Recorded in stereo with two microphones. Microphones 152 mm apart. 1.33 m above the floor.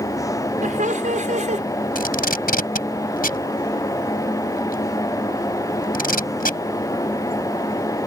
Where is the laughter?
60° right (ahead or behind); by 1.6 s 55° right (ahead or behind).